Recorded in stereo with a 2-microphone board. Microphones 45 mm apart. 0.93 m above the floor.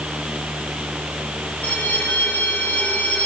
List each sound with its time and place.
1.6 s a bell: 40° left (ahead or behind), 4 m